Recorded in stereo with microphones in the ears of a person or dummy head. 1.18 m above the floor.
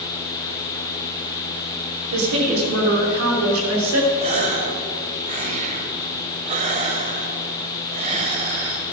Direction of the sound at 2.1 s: 85° right.